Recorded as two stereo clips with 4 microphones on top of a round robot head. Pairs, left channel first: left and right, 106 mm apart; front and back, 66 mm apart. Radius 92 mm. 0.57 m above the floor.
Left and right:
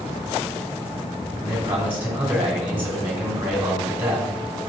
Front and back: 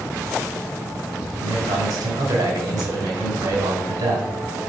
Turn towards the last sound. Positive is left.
turn(degrees=-165)